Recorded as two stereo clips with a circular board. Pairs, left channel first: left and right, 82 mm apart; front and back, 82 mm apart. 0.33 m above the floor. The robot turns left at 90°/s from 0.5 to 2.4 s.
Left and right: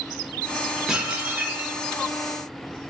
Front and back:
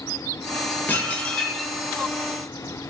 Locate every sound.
0.9 s dishes clattering: 20° right, 0.5 m; by 1.8 s 100° right, 0.5 m